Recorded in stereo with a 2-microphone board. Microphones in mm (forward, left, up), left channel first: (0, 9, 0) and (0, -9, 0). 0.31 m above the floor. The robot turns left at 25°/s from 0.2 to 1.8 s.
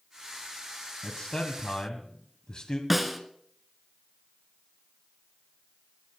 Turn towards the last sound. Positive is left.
turn(degrees=0)  # may be behind; listen again after turning